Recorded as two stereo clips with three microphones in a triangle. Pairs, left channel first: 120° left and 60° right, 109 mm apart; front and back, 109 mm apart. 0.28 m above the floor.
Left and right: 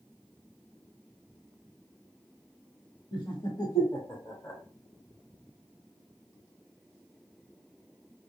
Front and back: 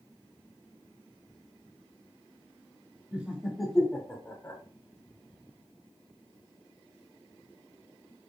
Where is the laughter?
115° left, 1.2 m; by 4.6 s 50° left, 1.4 m.